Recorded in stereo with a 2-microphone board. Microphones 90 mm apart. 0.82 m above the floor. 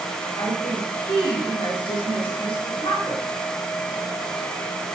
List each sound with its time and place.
0.4 s a woman speaking: 60° left (ahead or behind), 4.5 m